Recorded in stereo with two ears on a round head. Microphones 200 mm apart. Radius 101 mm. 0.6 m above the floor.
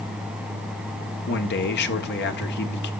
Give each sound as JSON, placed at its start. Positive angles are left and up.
{"t": 1.3, "sound": "a man speaking", "side_deg": 50, "distance_m": 1.6}